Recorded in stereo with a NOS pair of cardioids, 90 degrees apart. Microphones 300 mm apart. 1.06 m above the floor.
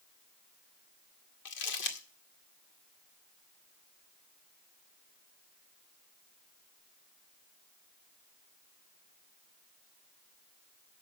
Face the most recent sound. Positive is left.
turn(degrees=70)